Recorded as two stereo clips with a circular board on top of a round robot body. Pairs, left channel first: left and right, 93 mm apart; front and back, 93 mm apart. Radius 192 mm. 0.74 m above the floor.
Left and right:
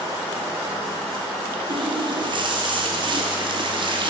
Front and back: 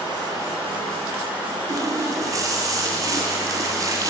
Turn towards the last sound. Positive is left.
turn(degrees=-125)